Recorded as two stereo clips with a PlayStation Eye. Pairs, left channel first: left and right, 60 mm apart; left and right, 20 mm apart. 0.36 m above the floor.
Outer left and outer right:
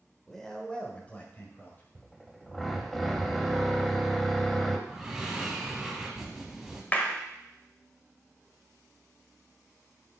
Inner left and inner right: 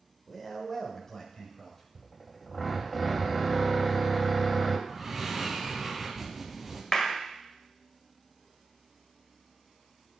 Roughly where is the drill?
Centre.